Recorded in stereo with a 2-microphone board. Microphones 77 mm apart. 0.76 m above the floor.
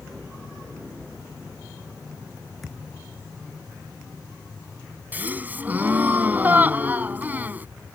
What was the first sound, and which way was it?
A thud, centre (ahead or behind).